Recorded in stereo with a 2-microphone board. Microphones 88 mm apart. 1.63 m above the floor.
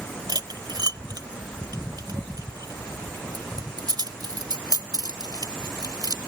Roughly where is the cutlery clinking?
Right.